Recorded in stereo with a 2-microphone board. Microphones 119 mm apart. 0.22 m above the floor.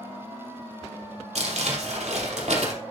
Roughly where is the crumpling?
Right.